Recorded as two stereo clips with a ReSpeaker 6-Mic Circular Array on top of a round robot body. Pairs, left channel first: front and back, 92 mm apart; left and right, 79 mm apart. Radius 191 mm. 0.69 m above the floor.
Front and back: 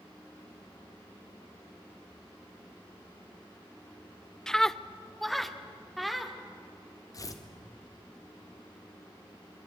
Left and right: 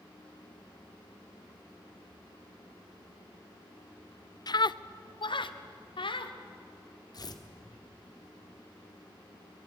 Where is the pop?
I don't hear a pop.